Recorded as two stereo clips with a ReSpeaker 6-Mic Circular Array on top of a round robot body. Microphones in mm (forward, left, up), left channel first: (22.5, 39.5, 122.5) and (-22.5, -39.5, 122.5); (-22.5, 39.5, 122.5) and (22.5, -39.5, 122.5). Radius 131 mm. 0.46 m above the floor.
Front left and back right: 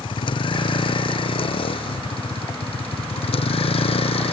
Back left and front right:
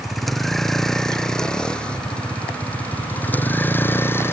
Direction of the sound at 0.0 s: 30° left.